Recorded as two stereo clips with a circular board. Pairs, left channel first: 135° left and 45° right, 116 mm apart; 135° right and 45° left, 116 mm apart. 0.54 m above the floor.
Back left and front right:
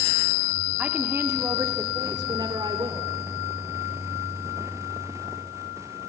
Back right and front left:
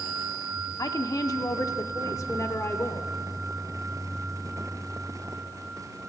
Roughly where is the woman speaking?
Behind right.